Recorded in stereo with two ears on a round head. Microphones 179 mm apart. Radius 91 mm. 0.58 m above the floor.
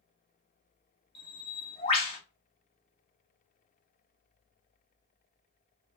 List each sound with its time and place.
1.1 s a bird: 30° left (ahead or behind), 1.4 m